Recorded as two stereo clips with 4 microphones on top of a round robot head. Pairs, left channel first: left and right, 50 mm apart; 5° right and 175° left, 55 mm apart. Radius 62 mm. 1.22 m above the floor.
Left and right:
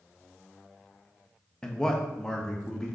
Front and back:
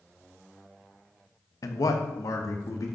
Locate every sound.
1.6 s a man speaking: 10° left, 1.1 m